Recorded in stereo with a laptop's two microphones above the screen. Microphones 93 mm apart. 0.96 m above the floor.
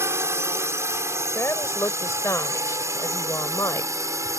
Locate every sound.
0.0 s a drone: 25° right (ahead or behind); by 4.4 s 30° right (ahead or behind)
1.4 s a woman speaking: 30° left (ahead or behind)